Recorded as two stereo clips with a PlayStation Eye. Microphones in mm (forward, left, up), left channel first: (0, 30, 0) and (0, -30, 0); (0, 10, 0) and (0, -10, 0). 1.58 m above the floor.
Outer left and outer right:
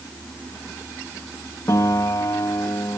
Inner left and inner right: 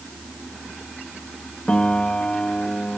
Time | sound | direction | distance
1.7 | a piano | 80° left | ?